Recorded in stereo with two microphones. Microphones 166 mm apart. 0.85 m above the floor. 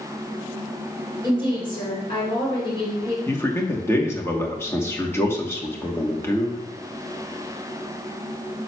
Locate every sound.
1.2 s a woman speaking: 30° left (ahead or behind), 3 m
3.3 s a man speaking: 15° left (ahead or behind), 1.0 m